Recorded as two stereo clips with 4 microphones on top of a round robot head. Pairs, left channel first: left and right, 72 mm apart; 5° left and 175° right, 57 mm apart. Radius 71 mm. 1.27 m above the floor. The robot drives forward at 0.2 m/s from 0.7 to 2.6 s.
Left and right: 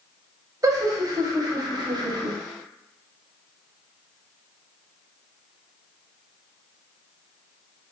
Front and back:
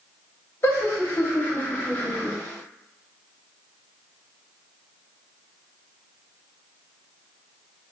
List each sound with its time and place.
0.6 s laughter: 50° right, 0.8 m; by 2.4 s 70° right, 0.7 m